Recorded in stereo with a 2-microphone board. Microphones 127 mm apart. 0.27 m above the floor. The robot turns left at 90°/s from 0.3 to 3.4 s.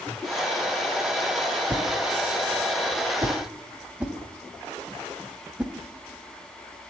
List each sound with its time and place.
1.7 s a whoosh: 10° right (ahead or behind), 0.9 m